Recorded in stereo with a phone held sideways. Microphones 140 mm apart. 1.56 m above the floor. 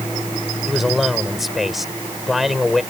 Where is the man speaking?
Centre (ahead or behind).